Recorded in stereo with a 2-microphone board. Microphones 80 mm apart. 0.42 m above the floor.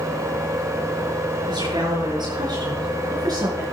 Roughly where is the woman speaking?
Right.